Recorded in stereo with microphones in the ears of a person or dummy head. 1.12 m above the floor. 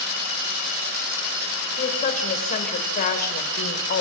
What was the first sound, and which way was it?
A woman speaking, 40° left (ahead or behind).